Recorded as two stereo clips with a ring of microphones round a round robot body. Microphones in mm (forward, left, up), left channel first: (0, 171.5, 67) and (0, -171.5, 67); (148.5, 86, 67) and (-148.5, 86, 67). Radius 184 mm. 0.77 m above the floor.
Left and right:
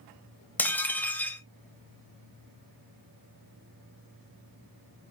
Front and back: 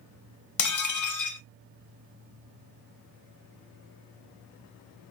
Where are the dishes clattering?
5° left, 0.5 m.